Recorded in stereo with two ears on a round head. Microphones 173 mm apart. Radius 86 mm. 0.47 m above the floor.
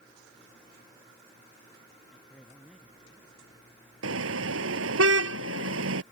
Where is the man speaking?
Centre (ahead or behind).